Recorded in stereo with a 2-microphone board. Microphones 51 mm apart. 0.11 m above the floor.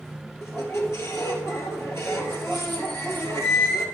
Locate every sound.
0.4 s a squeak: 60° left (ahead or behind), 1.7 m